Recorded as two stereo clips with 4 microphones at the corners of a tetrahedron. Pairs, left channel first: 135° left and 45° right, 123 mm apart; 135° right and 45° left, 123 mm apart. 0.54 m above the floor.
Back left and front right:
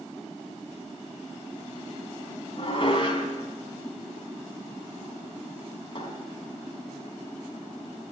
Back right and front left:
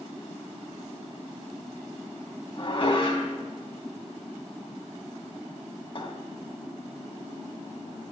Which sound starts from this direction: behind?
Dishes clattering, at 2.6 s.